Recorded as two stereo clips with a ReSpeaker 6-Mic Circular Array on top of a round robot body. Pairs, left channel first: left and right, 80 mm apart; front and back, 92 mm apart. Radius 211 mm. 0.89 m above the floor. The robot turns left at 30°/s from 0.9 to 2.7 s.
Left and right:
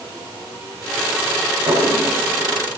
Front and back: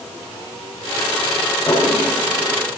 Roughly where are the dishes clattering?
Right.